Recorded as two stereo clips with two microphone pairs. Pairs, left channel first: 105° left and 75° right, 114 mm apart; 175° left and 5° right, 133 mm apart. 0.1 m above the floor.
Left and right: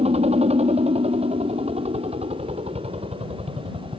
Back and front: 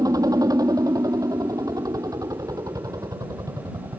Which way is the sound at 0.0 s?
65° right.